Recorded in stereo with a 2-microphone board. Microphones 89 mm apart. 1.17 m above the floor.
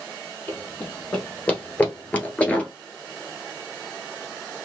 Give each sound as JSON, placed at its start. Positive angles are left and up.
{"t": 0.5, "sound": "running footsteps", "side_deg": 20, "distance_m": 2.5}